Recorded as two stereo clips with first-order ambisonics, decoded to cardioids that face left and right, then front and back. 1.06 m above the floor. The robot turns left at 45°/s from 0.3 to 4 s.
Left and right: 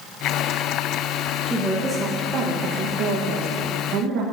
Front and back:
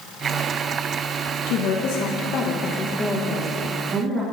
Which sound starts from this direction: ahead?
A woman speaking, at 1.5 s.